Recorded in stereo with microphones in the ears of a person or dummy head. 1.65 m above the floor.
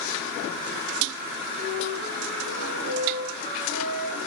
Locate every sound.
1.6 s a flute: 30° left (ahead or behind), 6.5 m